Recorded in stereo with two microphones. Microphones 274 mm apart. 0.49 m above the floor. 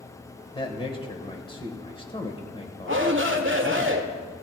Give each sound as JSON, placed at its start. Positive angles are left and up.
{"t": 0.6, "sound": "a man speaking", "side_deg": 20, "distance_m": 1.7}
{"t": 2.9, "sound": "a shout", "side_deg": -45, "distance_m": 1.4}